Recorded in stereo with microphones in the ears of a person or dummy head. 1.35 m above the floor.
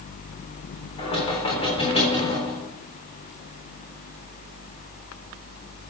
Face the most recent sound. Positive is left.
turn(degrees=35)  # may be behind; listen again after turning